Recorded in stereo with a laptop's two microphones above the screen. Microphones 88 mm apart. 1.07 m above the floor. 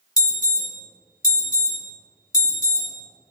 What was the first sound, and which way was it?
An alarm, 45° left (ahead or behind).